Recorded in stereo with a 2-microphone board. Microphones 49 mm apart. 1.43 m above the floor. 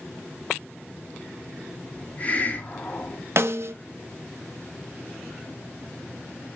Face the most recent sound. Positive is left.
turn(degrees=-60)  # may be behind; listen again after turning